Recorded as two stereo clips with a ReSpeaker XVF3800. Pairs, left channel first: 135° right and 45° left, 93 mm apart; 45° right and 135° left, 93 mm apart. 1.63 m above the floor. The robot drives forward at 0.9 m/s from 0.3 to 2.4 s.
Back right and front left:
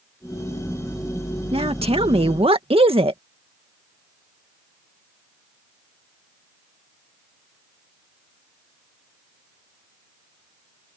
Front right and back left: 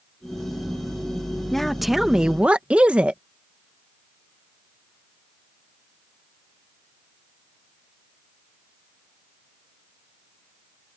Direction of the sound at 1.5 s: 45° left.